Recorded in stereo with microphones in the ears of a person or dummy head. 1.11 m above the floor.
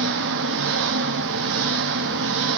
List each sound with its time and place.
0.0 s an engine running: 65° right (ahead or behind), 0.8 m